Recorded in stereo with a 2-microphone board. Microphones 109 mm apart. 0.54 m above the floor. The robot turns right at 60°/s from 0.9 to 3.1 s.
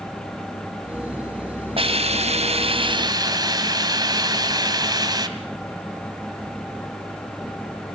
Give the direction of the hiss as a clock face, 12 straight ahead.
4 o'clock.